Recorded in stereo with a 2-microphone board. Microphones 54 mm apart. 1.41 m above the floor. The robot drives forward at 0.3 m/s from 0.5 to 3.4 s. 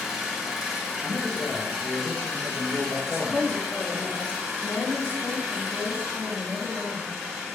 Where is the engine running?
5° right (ahead or behind), 1.0 m; by 7.5 s centre (ahead or behind), 1.8 m.